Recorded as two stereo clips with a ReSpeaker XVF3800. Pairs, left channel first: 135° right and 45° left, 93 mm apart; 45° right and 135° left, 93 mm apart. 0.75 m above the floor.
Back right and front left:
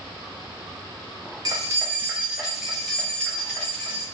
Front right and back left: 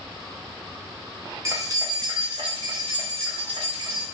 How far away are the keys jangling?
About 0.7 m.